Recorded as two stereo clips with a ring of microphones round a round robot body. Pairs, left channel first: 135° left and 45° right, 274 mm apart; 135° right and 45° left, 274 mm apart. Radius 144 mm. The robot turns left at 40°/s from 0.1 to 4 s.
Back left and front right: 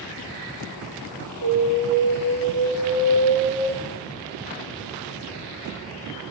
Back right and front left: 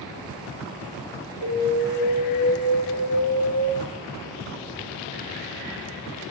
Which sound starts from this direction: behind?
An alarm, at 1.4 s.